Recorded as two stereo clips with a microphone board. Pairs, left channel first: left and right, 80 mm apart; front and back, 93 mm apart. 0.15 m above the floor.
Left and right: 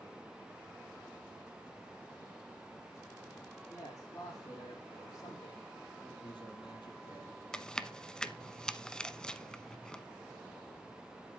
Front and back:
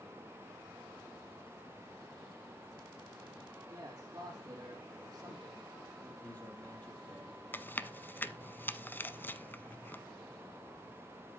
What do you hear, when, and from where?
3.7 s a man speaking: 130° left, 4.5 m
6.2 s a man speaking: 70° left, 5.5 m
7.5 s chewing: 25° left, 0.7 m